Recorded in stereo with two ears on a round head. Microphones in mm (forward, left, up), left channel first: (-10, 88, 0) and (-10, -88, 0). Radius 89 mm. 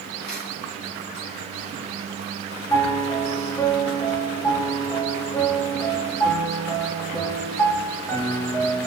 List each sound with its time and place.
0.2 s a camera shutter: 55° left (ahead or behind), 5.5 m
2.7 s a piano: 15° left (ahead or behind), 1.1 m